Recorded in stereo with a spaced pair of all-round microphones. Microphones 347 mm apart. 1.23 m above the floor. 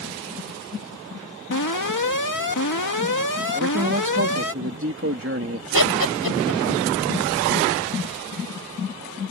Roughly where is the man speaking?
Right.